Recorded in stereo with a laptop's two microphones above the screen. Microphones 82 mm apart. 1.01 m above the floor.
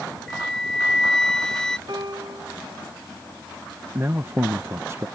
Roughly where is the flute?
Centre.